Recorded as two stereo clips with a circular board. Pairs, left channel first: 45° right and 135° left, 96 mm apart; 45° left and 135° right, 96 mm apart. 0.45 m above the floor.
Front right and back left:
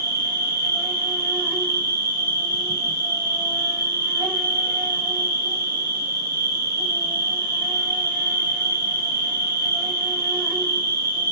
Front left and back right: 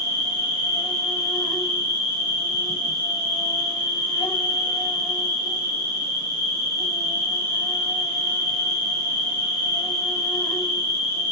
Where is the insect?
75° left, 1.6 m.